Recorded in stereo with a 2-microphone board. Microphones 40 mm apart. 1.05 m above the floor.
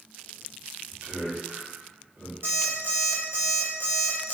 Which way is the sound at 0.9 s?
60° right (ahead or behind).